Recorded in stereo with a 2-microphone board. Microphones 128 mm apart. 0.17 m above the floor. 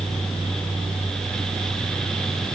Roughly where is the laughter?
I don't hear laughter.